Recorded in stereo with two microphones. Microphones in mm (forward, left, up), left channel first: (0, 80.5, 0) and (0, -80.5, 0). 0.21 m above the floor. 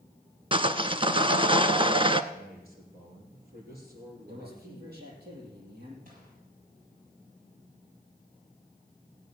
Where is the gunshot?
65° right (ahead or behind), 6.5 m.